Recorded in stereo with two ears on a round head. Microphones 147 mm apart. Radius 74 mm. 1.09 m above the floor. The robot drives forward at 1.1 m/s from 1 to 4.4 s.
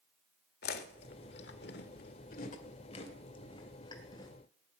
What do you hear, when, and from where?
0.6 s chewing: 65° left (ahead or behind), 1.6 m; by 4.3 s 25° left (ahead or behind), 3.5 m